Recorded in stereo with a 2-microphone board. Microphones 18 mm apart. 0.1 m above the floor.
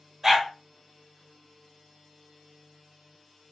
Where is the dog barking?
25° right (ahead or behind), 1.3 m.